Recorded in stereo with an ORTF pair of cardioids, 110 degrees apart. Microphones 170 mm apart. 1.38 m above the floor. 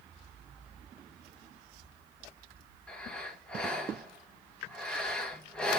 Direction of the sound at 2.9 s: 5° left.